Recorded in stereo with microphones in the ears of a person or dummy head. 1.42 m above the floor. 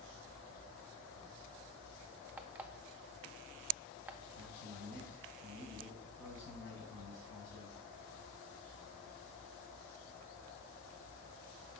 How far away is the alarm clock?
About 0.5 m.